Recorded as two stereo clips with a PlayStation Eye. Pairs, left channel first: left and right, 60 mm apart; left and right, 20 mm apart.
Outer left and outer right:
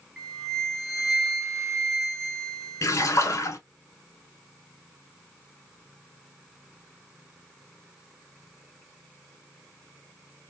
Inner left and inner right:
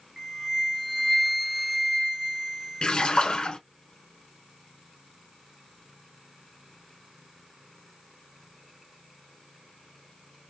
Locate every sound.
0.2 s a flute: centre (ahead or behind), 1.0 m
2.8 s a splash: 55° left (ahead or behind), 0.7 m